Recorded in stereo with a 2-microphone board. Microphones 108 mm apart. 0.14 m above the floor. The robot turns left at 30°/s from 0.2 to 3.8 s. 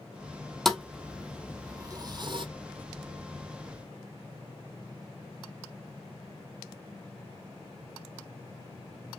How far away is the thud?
About 0.8 m.